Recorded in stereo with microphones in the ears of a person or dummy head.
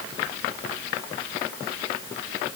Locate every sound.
Only background noise.